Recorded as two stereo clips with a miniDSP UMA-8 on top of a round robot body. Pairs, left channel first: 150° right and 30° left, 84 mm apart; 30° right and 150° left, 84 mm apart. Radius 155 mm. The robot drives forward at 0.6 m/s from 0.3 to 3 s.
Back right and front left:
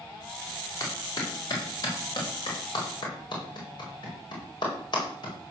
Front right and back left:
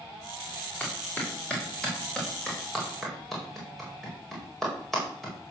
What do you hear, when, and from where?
0.8 s a clap: 100° right, 4.5 m; by 5.3 s 115° right, 5 m